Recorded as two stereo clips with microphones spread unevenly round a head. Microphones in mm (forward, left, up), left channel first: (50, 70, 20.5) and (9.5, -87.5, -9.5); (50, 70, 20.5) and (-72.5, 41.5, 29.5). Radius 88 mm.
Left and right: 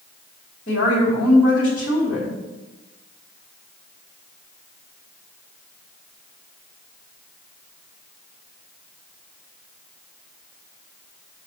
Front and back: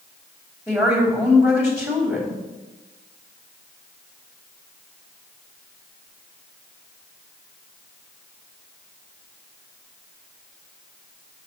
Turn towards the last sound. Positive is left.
turn(degrees=120)